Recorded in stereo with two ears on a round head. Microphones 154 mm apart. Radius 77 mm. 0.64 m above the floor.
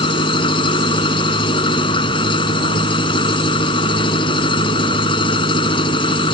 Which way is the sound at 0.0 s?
30° left (ahead or behind).